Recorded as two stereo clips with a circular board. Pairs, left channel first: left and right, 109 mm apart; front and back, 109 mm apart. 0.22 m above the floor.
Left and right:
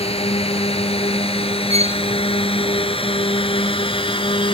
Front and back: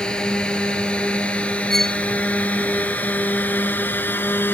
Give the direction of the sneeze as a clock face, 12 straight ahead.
No sneeze in this recording.